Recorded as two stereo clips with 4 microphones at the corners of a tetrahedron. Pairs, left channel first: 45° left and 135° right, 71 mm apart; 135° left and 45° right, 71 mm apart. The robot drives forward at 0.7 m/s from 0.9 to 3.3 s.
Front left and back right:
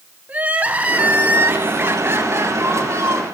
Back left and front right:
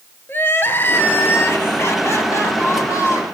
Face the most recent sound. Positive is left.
turn(degrees=175)